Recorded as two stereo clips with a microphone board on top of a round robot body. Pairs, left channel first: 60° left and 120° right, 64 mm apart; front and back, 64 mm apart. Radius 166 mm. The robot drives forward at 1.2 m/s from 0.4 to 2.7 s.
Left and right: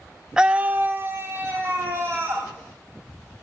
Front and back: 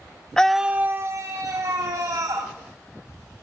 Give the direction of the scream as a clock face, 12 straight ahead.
2 o'clock.